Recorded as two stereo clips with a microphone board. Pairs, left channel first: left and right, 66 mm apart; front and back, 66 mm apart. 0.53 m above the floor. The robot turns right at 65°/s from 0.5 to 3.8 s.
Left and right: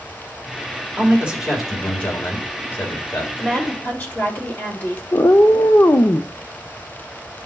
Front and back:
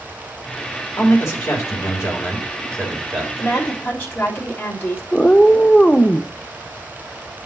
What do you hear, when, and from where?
1.0 s a man speaking: 40° right, 2 m; by 3.3 s 110° left, 2 m
3.4 s a woman speaking: 15° left, 1.6 m; by 5.0 s 40° left, 1.6 m
5.1 s a cat meowing: 70° left, 0.5 m